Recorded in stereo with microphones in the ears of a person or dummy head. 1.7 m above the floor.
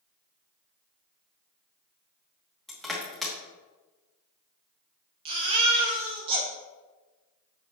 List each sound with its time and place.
2.7 s crushing: centre (ahead or behind), 1.4 m
5.2 s a baby crying: 25° right (ahead or behind), 1.0 m